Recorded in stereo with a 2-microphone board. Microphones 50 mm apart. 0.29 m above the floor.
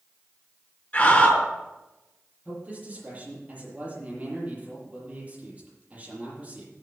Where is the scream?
25° left (ahead or behind), 4.5 m.